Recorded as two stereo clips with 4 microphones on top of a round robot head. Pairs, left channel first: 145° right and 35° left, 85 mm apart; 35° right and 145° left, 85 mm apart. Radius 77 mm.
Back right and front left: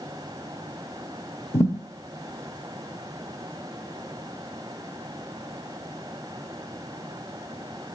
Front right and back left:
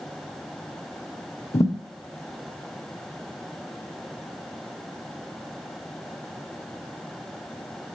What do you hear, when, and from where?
1.5 s a thud: 90° right, 0.8 m